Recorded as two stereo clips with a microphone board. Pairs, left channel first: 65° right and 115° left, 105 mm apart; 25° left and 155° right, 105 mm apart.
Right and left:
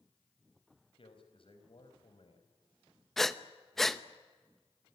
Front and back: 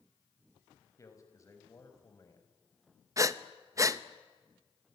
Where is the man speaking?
40° right, 4.5 m.